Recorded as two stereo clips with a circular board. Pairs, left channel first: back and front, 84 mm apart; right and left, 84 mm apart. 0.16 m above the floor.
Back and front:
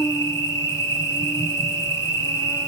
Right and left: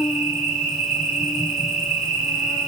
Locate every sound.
0.0 s an insect: 170° left, 1.3 m